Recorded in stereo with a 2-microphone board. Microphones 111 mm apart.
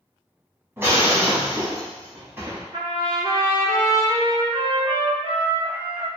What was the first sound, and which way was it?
Breaking glass, 20° right (ahead or behind).